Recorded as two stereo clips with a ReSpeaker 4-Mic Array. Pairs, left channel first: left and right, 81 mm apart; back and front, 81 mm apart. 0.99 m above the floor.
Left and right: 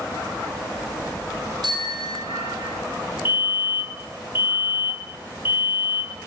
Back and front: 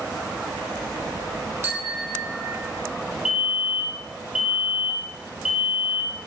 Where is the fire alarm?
80° left, 5.5 m.